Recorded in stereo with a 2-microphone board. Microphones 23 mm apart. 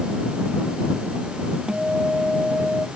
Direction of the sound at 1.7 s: 40° right (ahead or behind).